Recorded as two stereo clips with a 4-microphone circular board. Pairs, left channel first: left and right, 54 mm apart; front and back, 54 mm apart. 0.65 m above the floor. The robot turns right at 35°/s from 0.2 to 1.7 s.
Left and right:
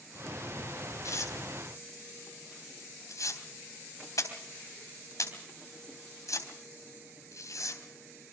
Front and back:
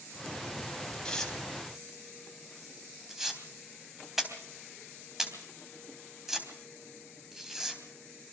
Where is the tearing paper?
75° left, 3.5 m; by 8.3 s 95° left, 3.5 m.